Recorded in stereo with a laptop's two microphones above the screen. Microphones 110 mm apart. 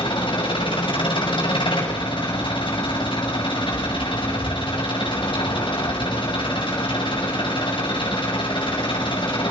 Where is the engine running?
45° left (ahead or behind), 6 m.